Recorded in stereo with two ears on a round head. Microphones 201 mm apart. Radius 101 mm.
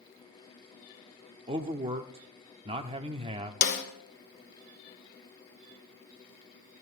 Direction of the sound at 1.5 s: 25° right (ahead or behind).